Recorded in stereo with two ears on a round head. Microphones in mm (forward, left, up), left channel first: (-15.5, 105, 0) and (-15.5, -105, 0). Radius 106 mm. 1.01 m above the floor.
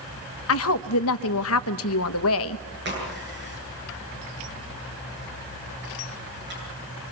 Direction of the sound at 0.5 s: 65° left (ahead or behind).